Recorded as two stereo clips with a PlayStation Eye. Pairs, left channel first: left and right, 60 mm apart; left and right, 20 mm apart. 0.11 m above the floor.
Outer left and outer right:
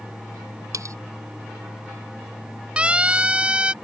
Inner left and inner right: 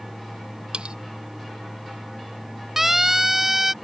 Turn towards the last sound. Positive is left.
turn(degrees=-15)  # may be behind; listen again after turning